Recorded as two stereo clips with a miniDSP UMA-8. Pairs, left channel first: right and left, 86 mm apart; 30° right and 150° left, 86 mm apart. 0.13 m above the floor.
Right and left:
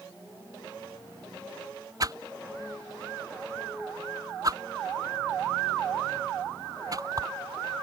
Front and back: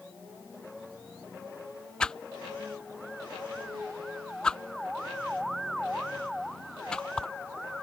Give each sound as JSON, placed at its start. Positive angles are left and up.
{"t": 2.0, "sound": "a whoosh", "azimuth_deg": 50}